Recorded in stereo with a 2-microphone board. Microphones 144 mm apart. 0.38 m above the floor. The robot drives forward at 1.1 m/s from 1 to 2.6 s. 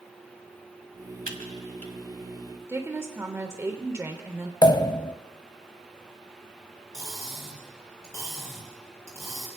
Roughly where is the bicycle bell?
No bicycle bell in this recording.